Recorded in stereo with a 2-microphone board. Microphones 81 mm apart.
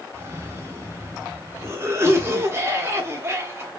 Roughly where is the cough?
Right.